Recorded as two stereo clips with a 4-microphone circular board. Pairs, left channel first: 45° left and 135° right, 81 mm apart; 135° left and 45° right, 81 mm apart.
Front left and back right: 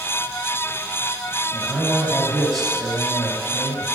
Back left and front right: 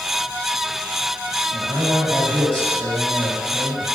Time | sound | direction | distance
1.5 | a man speaking | 45° right | 2 m